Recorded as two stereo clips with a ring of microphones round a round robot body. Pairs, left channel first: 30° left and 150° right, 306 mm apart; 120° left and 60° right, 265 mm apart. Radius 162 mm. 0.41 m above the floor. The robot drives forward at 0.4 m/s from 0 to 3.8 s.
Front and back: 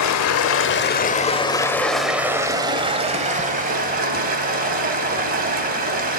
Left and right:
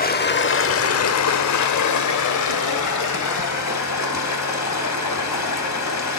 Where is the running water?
60° left, 0.9 m; by 6.2 s 145° left, 1.4 m.